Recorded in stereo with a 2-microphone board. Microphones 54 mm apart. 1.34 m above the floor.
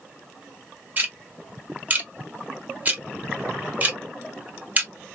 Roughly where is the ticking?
Right.